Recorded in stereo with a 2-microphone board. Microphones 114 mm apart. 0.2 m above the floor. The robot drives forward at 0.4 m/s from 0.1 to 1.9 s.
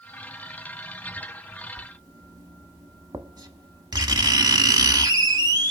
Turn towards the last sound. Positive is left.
turn(degrees=-35)  # may be behind; listen again after turning